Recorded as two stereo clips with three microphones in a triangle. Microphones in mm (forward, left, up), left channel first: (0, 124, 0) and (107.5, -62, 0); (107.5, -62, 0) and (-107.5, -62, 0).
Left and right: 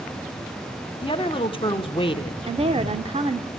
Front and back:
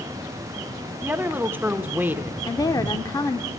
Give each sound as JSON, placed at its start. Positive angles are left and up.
{"t": 1.0, "sound": "a woman speaking", "azimuth_deg": 115, "distance_m": 1.0}
{"t": 2.5, "sound": "a woman speaking", "azimuth_deg": -50, "distance_m": 0.9}